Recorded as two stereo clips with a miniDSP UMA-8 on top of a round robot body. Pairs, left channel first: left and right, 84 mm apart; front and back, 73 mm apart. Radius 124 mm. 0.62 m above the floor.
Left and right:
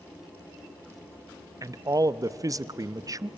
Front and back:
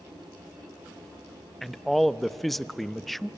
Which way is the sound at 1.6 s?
85° right.